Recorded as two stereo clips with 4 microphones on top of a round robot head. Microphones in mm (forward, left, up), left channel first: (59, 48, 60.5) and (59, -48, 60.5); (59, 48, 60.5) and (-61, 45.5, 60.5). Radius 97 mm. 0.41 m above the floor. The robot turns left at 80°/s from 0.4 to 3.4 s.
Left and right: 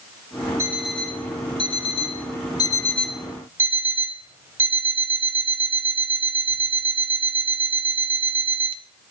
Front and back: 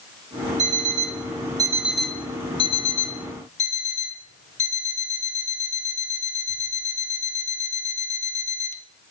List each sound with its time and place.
0.6 s an alarm clock: 155° right, 1.3 m; by 8.8 s 20° right, 1.3 m